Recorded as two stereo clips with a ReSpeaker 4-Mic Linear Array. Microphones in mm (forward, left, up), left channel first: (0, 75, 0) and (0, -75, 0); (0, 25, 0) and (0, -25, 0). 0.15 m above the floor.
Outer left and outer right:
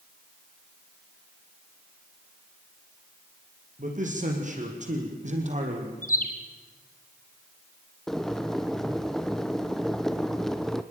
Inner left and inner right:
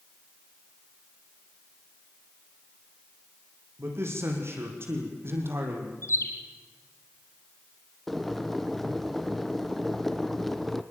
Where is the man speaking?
55° right (ahead or behind), 6 m; by 5.9 s 50° right (ahead or behind), 5 m.